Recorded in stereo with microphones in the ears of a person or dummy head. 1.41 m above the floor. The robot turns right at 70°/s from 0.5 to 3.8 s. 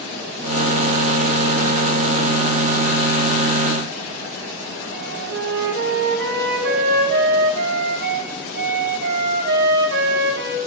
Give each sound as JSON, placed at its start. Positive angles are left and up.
{"t": 4.9, "sound": "a flute", "side_deg": -50, "distance_m": 0.6}